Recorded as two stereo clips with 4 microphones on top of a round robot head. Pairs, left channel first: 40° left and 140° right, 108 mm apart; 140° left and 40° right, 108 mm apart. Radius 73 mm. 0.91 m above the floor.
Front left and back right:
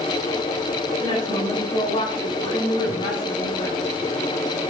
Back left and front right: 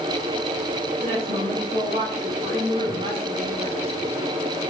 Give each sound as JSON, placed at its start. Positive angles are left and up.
{"t": 1.0, "sound": "a woman speaking", "azimuth_deg": -5, "distance_m": 4.5}